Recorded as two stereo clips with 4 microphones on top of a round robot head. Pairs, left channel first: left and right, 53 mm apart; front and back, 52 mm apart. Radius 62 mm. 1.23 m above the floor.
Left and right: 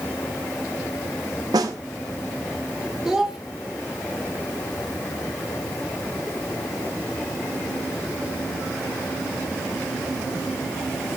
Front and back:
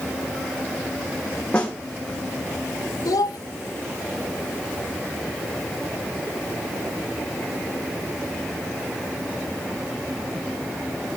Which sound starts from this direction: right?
A snare drum, at 1.5 s.